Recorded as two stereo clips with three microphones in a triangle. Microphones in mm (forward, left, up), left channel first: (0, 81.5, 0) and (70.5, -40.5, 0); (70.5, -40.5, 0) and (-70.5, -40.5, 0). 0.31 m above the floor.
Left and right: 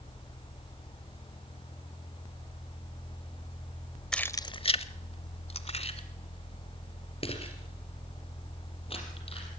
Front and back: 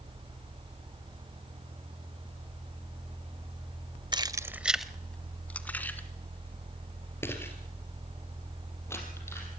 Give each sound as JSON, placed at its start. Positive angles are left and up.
{"t": 4.1, "sound": "keys jangling", "azimuth_deg": -160, "distance_m": 0.6}